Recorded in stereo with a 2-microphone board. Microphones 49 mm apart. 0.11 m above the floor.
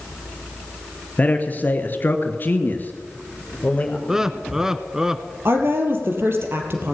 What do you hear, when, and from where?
1.2 s a man speaking: 35° left (ahead or behind), 2.5 m; by 4.0 s 30° left (ahead or behind), 3.5 m
4.1 s laughter: 10° right (ahead or behind), 1.1 m
5.5 s a woman speaking: 55° right (ahead or behind), 3 m